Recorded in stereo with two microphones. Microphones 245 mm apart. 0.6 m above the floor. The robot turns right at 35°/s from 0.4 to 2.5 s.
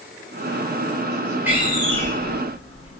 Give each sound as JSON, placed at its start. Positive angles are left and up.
{"t": 1.5, "sound": "a door slam", "side_deg": -10, "distance_m": 0.9}